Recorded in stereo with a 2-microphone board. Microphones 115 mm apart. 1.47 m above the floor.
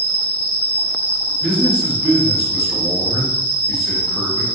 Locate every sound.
0.0 s an insect: 55° left (ahead or behind), 1.5 m
1.4 s a man speaking: 5° right (ahead or behind), 1.0 m